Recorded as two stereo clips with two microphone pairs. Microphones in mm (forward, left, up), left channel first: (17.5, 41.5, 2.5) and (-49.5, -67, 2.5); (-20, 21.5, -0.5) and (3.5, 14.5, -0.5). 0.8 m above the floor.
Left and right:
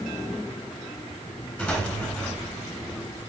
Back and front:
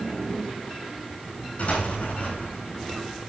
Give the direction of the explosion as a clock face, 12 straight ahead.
8 o'clock.